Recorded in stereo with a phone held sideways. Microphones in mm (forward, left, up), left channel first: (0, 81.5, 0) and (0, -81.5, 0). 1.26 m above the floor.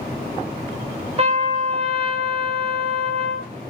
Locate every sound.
1.2 s a trumpet: 40° right (ahead or behind), 0.7 m